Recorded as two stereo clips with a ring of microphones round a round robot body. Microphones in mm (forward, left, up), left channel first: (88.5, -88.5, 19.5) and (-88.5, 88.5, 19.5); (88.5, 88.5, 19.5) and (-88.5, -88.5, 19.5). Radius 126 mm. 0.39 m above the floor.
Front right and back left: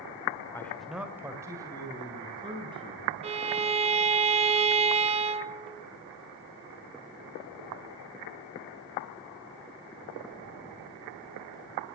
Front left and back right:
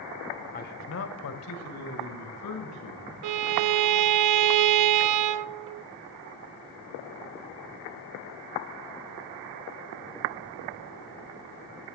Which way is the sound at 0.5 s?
25° left.